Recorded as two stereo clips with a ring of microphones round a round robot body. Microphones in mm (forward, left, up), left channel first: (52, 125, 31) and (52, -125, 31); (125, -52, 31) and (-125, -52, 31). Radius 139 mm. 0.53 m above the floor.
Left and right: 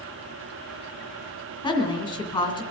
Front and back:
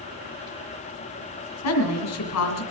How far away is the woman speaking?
About 2 m.